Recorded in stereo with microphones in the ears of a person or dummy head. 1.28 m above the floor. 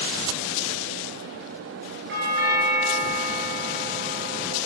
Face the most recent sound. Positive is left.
turn(degrees=-50)  # may be behind; listen again after turning